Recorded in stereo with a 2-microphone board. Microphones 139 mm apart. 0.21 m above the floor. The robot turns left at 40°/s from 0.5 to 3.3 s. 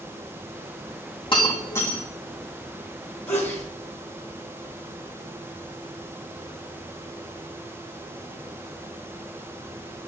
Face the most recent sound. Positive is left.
turn(degrees=15)  # may be behind; listen again after turning